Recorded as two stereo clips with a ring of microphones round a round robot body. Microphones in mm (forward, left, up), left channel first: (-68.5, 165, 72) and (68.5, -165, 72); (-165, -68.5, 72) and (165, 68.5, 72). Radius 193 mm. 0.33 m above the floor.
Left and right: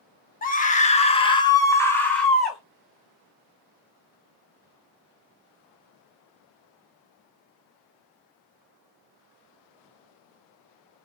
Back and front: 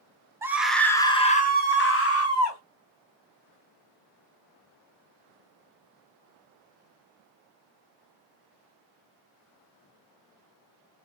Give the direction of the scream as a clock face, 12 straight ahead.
9 o'clock.